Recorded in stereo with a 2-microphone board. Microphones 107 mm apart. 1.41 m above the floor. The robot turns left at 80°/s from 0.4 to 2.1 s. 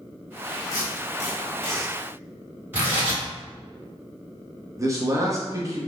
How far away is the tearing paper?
About 1.4 m.